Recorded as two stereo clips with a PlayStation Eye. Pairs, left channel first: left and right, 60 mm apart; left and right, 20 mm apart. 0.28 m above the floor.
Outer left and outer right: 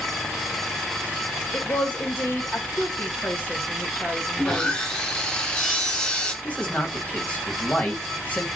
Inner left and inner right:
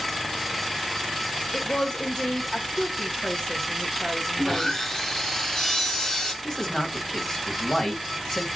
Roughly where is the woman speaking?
Left.